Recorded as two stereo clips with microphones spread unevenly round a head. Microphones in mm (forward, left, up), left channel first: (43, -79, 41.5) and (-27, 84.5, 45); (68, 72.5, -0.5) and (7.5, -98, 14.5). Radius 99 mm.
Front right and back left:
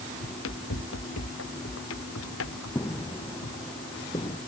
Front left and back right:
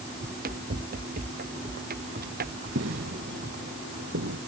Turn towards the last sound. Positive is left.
turn(degrees=-135)